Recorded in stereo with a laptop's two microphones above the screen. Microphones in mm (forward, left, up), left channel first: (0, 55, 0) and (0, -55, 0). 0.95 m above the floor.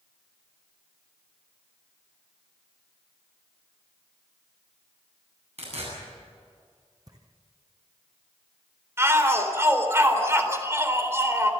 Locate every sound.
5.6 s tearing paper: 75° right (ahead or behind), 8.5 m
7.1 s footsteps: 35° right (ahead or behind), 1.8 m
9.0 s a shout: 25° right (ahead or behind), 4 m